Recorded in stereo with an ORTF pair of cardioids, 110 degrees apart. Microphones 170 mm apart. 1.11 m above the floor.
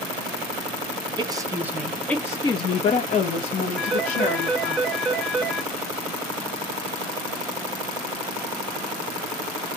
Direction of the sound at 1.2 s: 30° right.